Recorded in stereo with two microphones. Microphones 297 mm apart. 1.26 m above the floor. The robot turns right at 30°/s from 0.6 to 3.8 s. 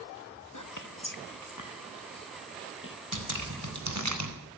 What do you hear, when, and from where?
0.5 s whispering: 70° left (ahead or behind), 1.5 m; by 3.0 s 40° left (ahead or behind), 1.5 m
3.1 s dripping: 80° right, 4 m; by 4.3 s 60° right (ahead or behind), 4 m